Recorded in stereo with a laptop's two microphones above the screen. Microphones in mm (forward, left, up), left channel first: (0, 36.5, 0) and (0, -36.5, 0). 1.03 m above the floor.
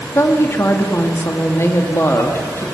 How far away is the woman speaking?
About 2.5 m.